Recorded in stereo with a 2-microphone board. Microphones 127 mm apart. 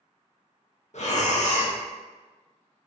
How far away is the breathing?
About 0.5 m.